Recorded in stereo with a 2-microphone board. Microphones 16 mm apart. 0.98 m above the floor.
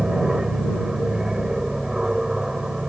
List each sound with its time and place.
0.0 s an aircraft: 35° right (ahead or behind)